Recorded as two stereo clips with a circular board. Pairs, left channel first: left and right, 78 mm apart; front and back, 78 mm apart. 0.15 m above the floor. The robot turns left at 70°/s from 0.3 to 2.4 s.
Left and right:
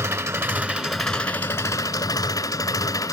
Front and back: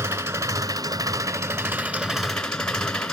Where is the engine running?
135° right, 1.0 m; by 3.1 s 80° left, 1.0 m.